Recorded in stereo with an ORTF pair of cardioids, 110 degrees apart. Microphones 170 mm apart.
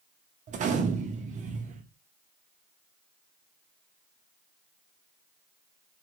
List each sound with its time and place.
0.5 s a gunshot: 45° right, 0.7 m